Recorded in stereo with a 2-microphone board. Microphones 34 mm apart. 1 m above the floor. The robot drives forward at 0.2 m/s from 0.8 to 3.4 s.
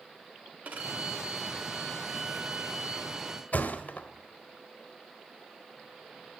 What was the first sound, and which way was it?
A violin, 55° right (ahead or behind).